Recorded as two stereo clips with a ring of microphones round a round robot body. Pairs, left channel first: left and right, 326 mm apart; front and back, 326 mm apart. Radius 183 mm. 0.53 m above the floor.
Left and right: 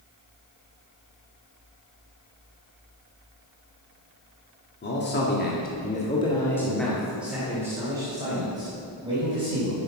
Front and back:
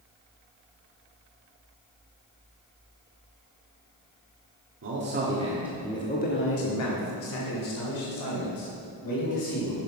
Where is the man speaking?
140° left, 1.5 m; by 9.8 s 15° right, 4 m.